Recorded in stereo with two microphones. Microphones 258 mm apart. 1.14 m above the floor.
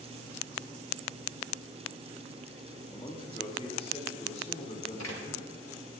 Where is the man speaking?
20° left (ahead or behind), 3 m; by 5.7 s 25° left (ahead or behind), 5.5 m.